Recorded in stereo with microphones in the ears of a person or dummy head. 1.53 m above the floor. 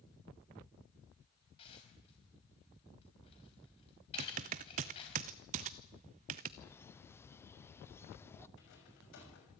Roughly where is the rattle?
Left.